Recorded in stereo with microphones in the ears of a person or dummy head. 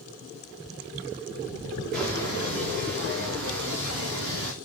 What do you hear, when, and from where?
1.9 s footsteps: 55° right (ahead or behind), 7 m; by 4.5 s 65° right (ahead or behind), 7 m